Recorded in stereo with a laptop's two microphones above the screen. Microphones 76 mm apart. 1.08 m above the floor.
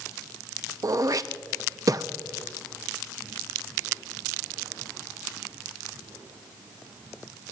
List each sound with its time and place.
0.8 s throat clearing: 50° right (ahead or behind), 0.6 m